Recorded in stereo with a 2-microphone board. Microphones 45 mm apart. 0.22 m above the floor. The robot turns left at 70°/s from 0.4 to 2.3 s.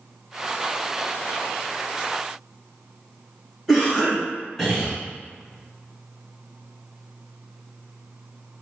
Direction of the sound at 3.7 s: Centre (ahead or behind).